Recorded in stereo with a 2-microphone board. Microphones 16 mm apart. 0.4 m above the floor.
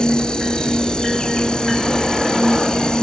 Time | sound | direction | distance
0.0 | an insect | 55° left (ahead or behind) | ?